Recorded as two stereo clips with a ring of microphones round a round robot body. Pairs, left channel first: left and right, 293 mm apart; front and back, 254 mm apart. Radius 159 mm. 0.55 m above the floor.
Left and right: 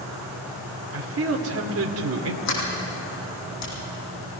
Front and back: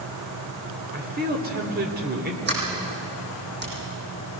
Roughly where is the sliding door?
Behind left.